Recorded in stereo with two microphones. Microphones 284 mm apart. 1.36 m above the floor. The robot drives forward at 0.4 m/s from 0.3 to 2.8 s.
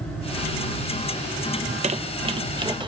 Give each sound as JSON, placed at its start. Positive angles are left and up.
{"t": 1.6, "sound": "a squeak", "side_deg": -25}